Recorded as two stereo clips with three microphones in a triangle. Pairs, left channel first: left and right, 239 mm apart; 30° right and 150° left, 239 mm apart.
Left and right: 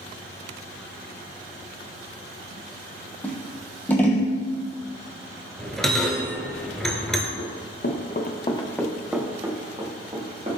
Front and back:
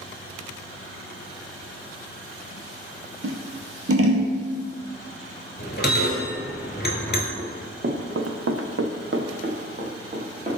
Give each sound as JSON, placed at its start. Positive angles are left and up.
{"t": 3.2, "sound": "scissors", "azimuth_deg": 170, "distance_m": 0.7}
{"t": 5.6, "sound": "a bell", "azimuth_deg": 0, "distance_m": 0.8}
{"t": 7.4, "sound": "running footsteps", "azimuth_deg": 100, "distance_m": 0.8}